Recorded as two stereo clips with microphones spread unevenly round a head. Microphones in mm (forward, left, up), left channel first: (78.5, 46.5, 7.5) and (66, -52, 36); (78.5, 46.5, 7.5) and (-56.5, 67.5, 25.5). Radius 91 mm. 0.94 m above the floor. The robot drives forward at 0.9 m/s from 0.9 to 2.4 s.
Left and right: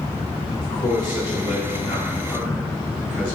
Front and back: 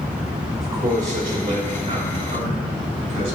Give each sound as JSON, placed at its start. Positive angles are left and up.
{"t": 0.6, "sound": "a man speaking", "azimuth_deg": 135, "distance_m": 2.5}